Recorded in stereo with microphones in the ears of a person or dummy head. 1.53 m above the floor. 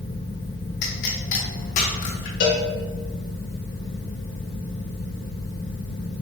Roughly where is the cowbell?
Left.